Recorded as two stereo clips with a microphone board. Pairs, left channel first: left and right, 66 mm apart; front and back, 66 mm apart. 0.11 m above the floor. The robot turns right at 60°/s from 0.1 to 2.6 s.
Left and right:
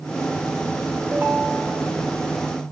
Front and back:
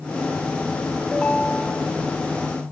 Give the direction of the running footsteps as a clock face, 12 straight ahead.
I don't hear running footsteps.